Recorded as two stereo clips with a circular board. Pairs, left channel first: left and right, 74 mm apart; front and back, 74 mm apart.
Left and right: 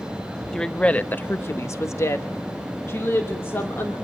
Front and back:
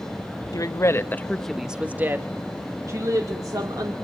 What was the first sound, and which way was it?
A woman speaking, 10° left.